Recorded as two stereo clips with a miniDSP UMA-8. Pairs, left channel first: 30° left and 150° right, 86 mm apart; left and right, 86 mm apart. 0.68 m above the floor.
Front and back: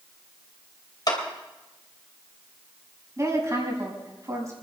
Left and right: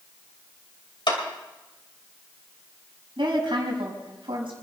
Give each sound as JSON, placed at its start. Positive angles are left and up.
{"t": 1.1, "sound": "a clap", "azimuth_deg": 65, "distance_m": 2.5}
{"t": 3.2, "sound": "a woman speaking", "azimuth_deg": -100, "distance_m": 5.5}